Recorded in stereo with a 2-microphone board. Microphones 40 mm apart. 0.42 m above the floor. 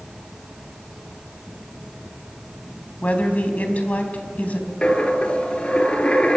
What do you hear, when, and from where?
3.0 s a woman speaking: 40° left (ahead or behind), 3.5 m
4.8 s a dropped coin: 30° left (ahead or behind), 1.9 m